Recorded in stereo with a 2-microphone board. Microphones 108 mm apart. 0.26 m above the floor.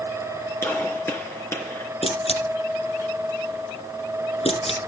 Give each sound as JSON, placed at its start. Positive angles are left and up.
{"t": 0.6, "sound": "a gunshot", "side_deg": 25, "distance_m": 3.5}
{"t": 2.0, "sound": "a camera shutter", "side_deg": 70, "distance_m": 7.0}